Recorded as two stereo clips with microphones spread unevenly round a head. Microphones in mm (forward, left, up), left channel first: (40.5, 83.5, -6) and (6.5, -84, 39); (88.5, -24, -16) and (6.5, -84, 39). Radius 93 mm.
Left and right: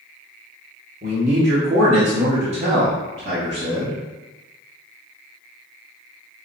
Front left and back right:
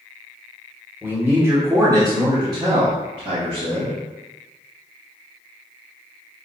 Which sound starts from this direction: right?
A man speaking, at 1.0 s.